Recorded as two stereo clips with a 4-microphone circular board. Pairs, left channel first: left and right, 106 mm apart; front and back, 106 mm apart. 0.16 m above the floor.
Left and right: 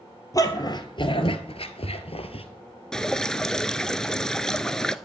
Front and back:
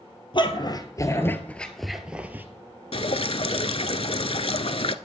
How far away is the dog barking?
About 1.6 m.